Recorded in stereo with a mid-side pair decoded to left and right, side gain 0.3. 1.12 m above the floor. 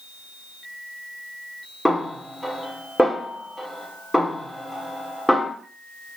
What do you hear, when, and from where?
1.9 s a snare drum: 15° left, 2.5 m